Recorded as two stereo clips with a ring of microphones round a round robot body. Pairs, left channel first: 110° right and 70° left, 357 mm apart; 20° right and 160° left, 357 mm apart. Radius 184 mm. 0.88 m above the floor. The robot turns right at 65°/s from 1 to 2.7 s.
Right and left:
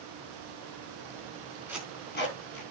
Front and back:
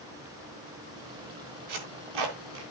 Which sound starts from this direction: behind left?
Tape being pulled, at 1.7 s.